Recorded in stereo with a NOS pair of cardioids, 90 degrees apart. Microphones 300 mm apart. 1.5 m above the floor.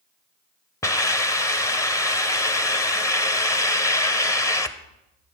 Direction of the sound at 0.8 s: 10° left.